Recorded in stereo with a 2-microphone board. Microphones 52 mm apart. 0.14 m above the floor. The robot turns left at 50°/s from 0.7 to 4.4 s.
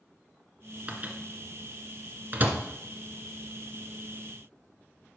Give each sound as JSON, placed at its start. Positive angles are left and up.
{"t": 0.9, "sound": "a microwave", "side_deg": -25, "distance_m": 1.6}